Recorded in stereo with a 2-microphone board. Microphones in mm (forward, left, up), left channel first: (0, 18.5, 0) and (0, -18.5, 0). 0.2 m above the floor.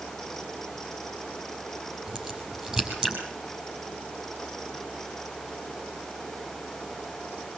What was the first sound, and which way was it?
A crack, 20° right (ahead or behind).